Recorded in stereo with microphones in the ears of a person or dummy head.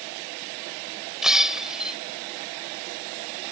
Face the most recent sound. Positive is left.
turn(degrees=0)  # may be behind; listen again after turning